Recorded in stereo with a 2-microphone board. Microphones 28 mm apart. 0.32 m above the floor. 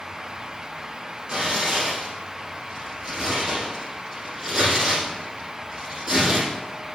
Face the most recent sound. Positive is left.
turn(degrees=-35)  # may be behind; listen again after turning